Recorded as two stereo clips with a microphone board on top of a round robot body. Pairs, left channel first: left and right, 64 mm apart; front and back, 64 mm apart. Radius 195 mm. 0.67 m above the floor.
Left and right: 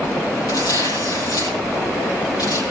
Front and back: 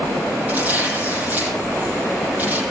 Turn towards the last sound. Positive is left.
turn(degrees=115)